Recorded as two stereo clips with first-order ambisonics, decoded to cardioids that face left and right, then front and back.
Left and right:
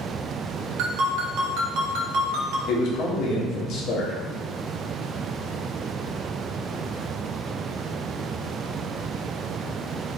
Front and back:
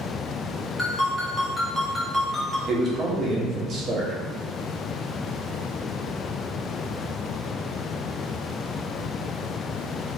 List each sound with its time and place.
0.8 s a ringtone: 85° right, 0.8 m
2.7 s a man speaking: 120° left, 0.9 m